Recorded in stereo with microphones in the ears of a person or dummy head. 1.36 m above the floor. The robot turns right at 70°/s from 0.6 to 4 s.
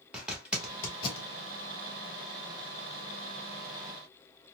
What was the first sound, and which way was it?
A zipper, 5° right (ahead or behind).